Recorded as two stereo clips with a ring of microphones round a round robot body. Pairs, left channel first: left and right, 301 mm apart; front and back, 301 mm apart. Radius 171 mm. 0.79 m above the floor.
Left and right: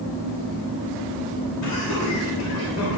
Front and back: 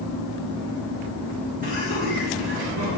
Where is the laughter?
115° left, 3 m; by 3.0 s 135° left, 3 m.